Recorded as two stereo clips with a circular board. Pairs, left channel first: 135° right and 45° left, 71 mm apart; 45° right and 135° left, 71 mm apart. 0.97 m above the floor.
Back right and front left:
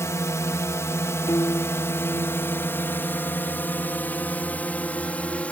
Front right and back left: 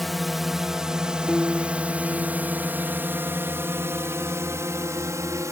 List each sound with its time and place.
0.0 s a drone: 135° right; by 5.5 s 160° left
1.3 s a piano: 140° right